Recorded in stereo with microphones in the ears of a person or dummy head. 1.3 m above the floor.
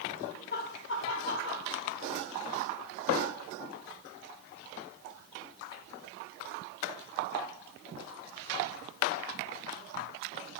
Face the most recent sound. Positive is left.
turn(degrees=60)  # may be behind; listen again after turning